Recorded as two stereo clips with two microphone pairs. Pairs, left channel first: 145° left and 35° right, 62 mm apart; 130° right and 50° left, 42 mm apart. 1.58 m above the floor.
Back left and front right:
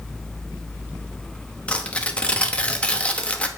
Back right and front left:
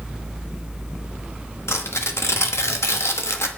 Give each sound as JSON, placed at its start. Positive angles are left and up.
{"t": 1.7, "sound": "tearing paper", "azimuth_deg": -140, "distance_m": 0.9}